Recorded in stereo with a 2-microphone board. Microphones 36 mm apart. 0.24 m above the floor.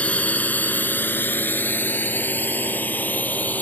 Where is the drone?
40° left (ahead or behind); by 3.6 s 55° left (ahead or behind).